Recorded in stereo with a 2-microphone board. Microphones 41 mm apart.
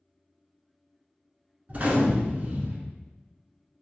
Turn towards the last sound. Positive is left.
turn(degrees=-35)  # may be behind; listen again after turning